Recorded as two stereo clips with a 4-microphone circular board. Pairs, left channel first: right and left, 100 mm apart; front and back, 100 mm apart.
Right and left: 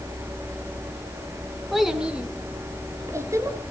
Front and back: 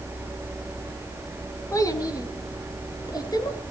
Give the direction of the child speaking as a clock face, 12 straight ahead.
12 o'clock.